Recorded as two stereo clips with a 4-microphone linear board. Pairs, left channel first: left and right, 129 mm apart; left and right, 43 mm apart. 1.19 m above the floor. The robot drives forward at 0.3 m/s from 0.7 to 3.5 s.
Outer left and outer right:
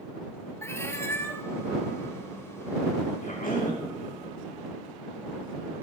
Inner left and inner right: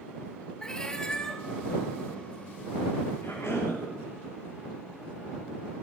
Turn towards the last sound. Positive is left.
turn(degrees=85)